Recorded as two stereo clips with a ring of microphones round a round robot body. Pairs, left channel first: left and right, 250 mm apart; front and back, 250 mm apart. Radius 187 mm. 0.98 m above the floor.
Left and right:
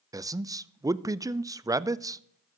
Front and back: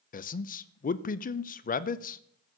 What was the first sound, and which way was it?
A man speaking, 20° right.